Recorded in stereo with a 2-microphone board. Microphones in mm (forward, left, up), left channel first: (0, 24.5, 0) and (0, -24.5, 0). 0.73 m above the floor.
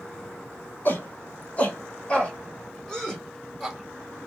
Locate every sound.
0.8 s a shout: 40° left (ahead or behind), 3 m; by 4.3 s centre (ahead or behind), 5 m